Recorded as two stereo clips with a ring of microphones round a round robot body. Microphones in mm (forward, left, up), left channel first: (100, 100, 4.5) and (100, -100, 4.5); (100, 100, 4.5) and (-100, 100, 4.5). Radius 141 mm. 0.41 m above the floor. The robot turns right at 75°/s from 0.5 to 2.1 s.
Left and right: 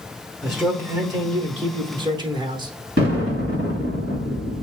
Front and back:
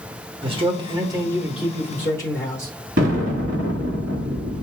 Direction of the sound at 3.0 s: 135° right.